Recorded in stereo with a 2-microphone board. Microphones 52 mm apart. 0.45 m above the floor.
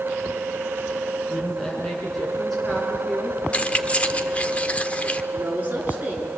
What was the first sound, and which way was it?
A woman speaking, 5° left (ahead or behind).